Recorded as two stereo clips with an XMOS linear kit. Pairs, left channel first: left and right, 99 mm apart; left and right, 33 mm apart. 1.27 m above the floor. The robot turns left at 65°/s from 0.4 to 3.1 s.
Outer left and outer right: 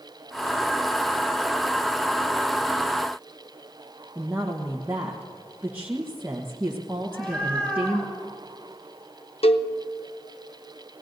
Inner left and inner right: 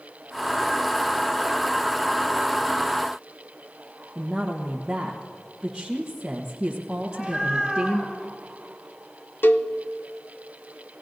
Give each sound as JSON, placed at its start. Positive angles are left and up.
{"t": 4.2, "sound": "a woman speaking", "side_deg": -20, "distance_m": 1.2}
{"t": 7.0, "sound": "a cat meowing", "side_deg": 15, "distance_m": 6.0}
{"t": 9.4, "sound": "a cowbell", "side_deg": 85, "distance_m": 0.6}